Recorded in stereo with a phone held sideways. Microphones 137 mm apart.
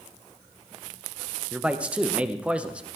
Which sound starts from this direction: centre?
A man speaking, at 1.5 s.